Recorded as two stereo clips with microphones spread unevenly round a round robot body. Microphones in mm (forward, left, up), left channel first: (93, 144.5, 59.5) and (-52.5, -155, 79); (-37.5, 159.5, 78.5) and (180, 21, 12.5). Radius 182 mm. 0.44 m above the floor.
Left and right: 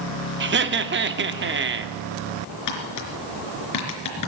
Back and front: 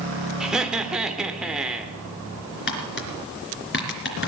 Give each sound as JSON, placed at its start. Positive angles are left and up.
{"t": 0.4, "sound": "laughter", "azimuth_deg": -90, "distance_m": 1.1}
{"t": 2.7, "sound": "tapping", "azimuth_deg": 100, "distance_m": 3.5}